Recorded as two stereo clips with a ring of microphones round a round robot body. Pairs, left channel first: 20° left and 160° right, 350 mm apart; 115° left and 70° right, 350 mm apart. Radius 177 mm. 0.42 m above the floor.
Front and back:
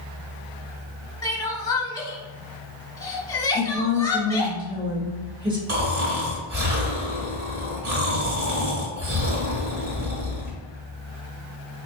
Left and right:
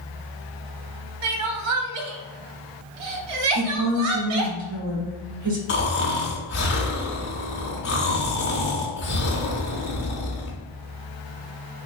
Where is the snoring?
155° left, 1.2 m.